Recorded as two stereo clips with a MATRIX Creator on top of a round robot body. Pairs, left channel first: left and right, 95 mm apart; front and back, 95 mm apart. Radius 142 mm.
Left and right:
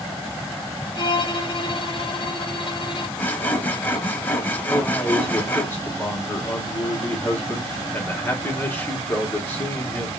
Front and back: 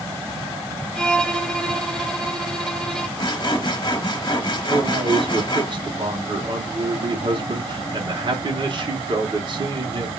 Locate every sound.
0.9 s a violin: 80° left, 1.1 m
3.2 s sawing: 25° left, 1.1 m
4.7 s a man speaking: 155° left, 1.4 m